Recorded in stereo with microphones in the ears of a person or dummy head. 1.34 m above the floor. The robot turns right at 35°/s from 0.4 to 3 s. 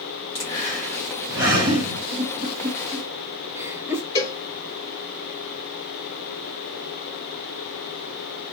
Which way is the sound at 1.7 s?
60° right (ahead or behind).